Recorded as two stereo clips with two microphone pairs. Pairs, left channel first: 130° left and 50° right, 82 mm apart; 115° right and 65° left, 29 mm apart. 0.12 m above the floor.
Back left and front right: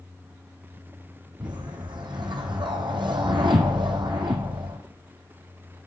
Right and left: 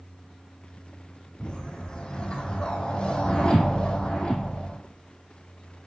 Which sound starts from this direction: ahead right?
A whoosh, at 1.4 s.